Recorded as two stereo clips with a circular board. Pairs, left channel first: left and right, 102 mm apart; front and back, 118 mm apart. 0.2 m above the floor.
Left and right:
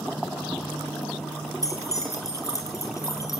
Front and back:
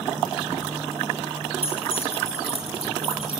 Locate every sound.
1.6 s keys jangling: 30° left, 4 m